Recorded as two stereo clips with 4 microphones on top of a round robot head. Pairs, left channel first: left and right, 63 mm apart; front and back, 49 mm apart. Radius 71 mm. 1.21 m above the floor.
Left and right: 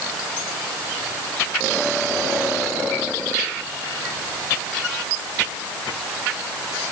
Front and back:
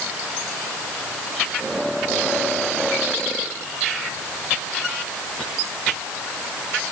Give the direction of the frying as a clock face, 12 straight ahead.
No frying in this recording.